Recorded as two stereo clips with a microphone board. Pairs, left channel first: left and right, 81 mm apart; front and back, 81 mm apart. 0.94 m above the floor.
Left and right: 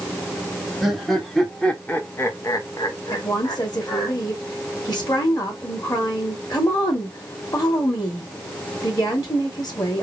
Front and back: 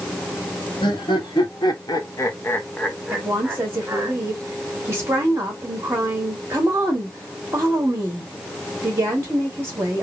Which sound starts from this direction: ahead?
Laughter, at 0.8 s.